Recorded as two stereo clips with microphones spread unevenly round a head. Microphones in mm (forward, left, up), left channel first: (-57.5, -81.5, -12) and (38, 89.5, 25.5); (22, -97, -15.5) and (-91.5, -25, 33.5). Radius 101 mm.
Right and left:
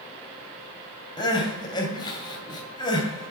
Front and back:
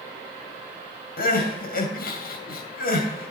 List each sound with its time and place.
1.2 s crying: 45° right, 2.5 m